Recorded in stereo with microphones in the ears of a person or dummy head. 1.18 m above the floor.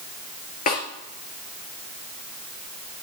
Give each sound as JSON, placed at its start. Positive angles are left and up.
{"t": 0.7, "sound": "a snare drum", "side_deg": 45, "distance_m": 3.5}